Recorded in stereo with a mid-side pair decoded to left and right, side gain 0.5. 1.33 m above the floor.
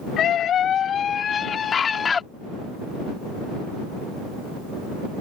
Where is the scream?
60° left; by 2.2 s 35° left.